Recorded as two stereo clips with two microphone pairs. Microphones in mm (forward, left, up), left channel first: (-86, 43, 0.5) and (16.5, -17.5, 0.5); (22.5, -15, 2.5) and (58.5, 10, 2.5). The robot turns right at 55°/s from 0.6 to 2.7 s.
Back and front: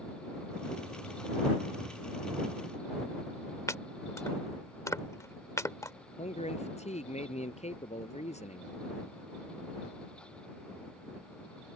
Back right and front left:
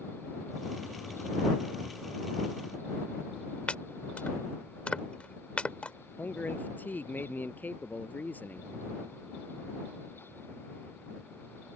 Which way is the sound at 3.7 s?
Straight behind.